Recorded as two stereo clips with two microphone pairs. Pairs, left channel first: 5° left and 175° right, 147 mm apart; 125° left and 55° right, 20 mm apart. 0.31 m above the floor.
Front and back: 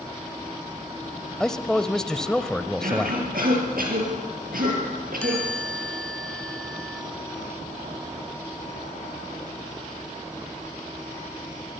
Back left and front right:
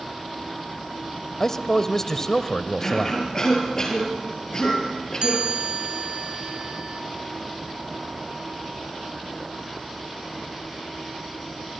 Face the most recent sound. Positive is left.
turn(degrees=-75)